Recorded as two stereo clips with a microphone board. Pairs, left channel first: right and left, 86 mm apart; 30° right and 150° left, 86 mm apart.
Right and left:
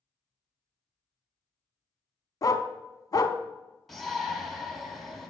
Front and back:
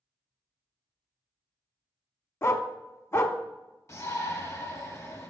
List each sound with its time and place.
2.4 s a dog barking: 75° right, 0.5 m
3.9 s a shout: straight ahead, 1.3 m